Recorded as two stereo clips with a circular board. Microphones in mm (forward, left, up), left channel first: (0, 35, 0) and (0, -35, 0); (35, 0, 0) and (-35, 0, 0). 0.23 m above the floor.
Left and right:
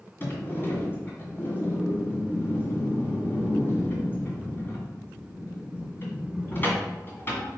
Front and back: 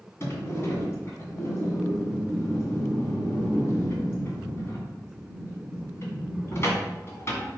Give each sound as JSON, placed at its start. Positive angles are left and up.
{"t": 0.2, "sound": "a sliding door", "azimuth_deg": 40, "distance_m": 1.9}